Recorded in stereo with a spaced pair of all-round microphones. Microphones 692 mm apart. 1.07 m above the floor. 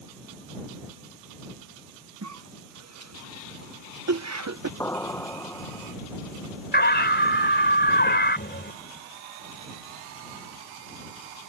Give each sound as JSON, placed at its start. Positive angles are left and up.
{"t": 2.2, "sound": "a cough", "side_deg": -25}
{"t": 4.8, "sound": "an explosion", "side_deg": 5}
{"t": 6.7, "sound": "a scream", "side_deg": 15}